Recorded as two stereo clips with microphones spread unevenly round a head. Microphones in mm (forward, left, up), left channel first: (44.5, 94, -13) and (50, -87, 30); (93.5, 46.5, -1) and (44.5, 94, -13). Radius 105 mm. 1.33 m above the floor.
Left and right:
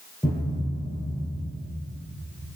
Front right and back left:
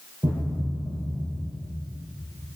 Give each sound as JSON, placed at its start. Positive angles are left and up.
{"t": 0.2, "sound": "a thud", "azimuth_deg": -170, "distance_m": 6.5}